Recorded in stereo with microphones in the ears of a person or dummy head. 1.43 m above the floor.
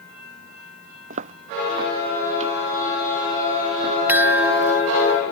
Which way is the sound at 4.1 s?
Centre (ahead or behind).